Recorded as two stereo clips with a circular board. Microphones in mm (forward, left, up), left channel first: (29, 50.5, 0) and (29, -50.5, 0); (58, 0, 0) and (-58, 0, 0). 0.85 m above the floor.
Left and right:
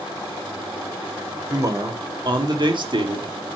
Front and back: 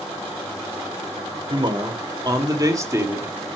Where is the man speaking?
140° right, 2.5 m; by 3.4 s 110° right, 2.0 m.